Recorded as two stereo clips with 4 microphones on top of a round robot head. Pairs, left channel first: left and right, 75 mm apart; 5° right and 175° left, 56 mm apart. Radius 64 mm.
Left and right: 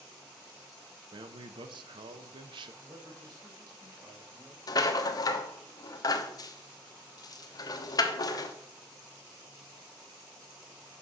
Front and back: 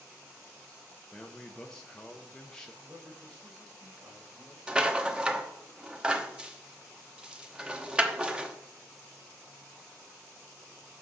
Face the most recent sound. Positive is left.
turn(degrees=105)